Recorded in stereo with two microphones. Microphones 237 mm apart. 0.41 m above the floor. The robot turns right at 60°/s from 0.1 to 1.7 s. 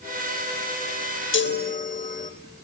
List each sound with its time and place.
1.3 s a chime: 55° left (ahead or behind), 0.5 m; by 2.3 s 35° left (ahead or behind), 0.5 m